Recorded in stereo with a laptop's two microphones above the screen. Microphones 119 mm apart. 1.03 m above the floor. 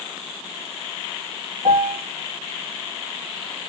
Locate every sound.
1.6 s a piano: 60° right (ahead or behind), 1.2 m